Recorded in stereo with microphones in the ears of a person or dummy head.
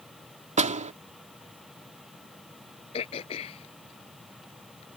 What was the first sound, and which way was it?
A door slam, 40° right (ahead or behind).